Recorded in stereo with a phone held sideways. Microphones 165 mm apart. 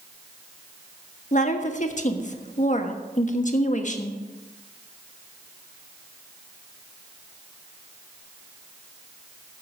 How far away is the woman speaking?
About 1.2 m.